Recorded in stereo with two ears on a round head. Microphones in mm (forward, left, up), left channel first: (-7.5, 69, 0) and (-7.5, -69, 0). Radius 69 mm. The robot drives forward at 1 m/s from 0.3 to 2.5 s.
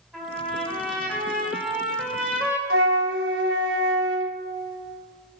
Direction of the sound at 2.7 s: 75° right (ahead or behind).